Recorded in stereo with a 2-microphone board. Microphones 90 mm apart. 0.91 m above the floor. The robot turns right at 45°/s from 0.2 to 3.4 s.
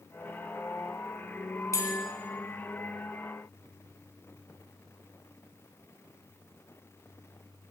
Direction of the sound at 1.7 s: 35° left (ahead or behind).